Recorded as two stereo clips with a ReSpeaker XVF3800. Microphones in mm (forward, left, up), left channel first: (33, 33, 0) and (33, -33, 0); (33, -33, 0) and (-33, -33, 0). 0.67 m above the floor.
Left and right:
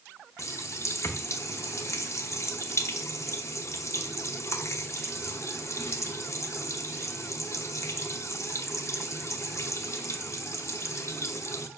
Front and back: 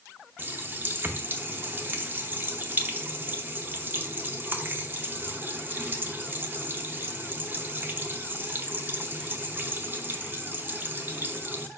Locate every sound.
0.4 s a running tap: 125° left, 0.9 m